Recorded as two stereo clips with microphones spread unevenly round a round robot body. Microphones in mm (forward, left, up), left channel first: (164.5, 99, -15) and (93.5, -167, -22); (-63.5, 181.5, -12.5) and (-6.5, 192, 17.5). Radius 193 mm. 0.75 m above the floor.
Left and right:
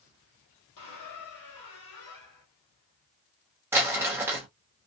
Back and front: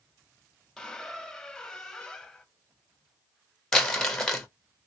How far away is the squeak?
About 1.0 m.